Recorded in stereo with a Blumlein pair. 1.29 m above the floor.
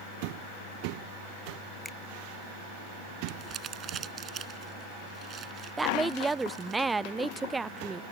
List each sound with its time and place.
1.9 s a finger snap: 10° left
3.3 s crumpling: 25° right
5.8 s a woman speaking: 10° right